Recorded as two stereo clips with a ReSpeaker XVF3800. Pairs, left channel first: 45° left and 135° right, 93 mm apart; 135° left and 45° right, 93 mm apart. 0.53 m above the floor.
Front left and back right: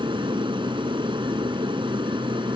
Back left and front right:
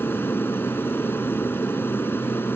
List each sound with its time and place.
0.0 s an aircraft: 160° right